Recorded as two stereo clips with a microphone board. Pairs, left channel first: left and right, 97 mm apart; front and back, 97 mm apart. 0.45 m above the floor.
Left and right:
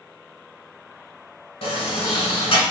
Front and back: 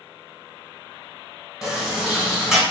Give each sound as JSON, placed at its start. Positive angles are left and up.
{"t": 1.6, "sound": "a sliding door", "azimuth_deg": 95, "distance_m": 1.1}